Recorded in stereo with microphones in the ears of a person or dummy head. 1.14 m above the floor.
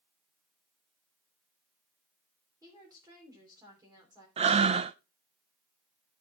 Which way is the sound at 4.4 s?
35° right (ahead or behind).